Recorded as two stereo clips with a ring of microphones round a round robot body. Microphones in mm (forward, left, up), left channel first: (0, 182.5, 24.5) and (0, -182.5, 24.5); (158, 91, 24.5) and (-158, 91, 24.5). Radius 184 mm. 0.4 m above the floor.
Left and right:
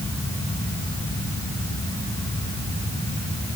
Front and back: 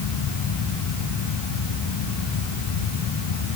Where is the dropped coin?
No dropped coin in this recording.